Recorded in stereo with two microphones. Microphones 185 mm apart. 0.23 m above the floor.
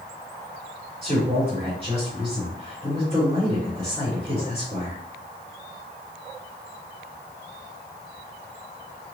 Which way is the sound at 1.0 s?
35° right (ahead or behind).